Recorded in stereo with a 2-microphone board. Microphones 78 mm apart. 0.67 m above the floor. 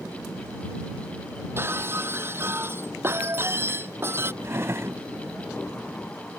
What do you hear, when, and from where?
1.6 s breaking glass: 30° right (ahead or behind)
4.4 s a drawer: 35° right (ahead or behind)